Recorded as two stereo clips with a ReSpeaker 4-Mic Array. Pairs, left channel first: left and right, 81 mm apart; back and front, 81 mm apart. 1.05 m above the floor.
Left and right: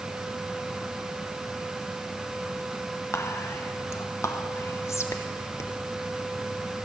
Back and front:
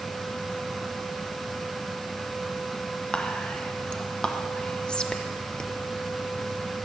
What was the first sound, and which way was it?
Whispering, 110° left.